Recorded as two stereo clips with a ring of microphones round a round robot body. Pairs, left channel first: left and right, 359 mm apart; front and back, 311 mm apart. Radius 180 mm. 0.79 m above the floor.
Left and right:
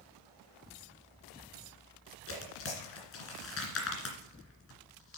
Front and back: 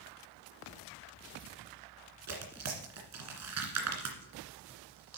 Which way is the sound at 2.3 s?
145° left.